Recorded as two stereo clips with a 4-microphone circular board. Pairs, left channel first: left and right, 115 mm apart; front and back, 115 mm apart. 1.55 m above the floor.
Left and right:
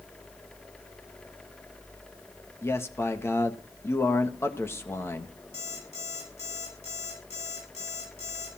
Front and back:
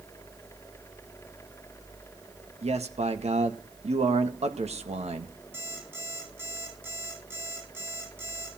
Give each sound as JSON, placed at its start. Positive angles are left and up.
{"t": 2.6, "sound": "a man speaking", "azimuth_deg": 160, "distance_m": 1.8}
{"t": 5.5, "sound": "an alarm clock", "azimuth_deg": 110, "distance_m": 8.0}